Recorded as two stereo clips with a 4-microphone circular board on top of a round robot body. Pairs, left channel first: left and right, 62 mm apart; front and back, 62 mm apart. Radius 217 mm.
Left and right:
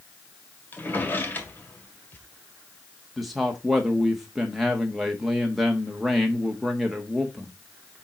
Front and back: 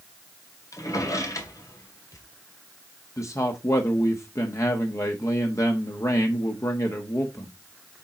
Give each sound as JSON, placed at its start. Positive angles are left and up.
{"t": 0.7, "sound": "a drawer", "azimuth_deg": 30, "distance_m": 1.9}
{"t": 3.2, "sound": "a man speaking", "azimuth_deg": 0, "distance_m": 1.6}